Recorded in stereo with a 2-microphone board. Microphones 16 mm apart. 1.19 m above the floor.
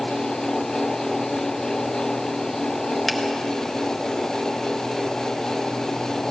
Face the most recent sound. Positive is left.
turn(degrees=10)  # may be behind; listen again after turning